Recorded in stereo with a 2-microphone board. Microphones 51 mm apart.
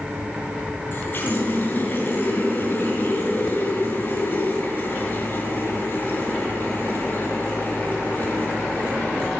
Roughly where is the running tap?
Left.